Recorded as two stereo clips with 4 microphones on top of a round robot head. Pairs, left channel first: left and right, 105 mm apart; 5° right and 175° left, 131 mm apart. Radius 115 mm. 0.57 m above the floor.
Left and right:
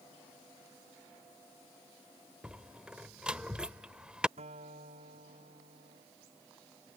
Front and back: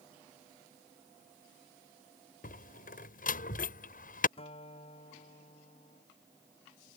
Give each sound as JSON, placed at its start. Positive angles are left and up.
{"t": 2.4, "sound": "a door slam", "azimuth_deg": -5}
{"t": 4.4, "sound": "a guitar", "azimuth_deg": -60}